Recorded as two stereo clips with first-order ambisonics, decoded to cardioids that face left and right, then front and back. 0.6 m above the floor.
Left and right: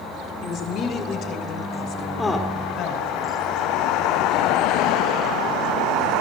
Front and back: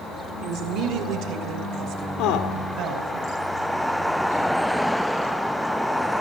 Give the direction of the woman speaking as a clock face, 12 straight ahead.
7 o'clock.